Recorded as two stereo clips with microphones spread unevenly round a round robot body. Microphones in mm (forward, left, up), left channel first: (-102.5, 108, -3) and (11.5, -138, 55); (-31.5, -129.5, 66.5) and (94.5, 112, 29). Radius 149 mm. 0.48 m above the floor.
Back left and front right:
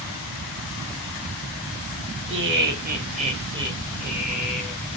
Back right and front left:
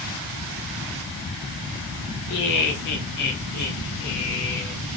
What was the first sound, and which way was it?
Laughter, 110° right.